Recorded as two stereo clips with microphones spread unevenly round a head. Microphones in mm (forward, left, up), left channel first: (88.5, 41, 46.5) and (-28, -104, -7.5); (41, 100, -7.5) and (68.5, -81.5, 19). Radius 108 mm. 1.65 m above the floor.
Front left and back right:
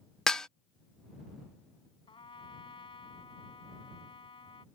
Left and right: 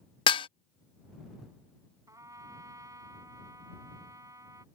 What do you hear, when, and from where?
0.3 s dishes clattering: 70° left
2.1 s a trumpet: 10° right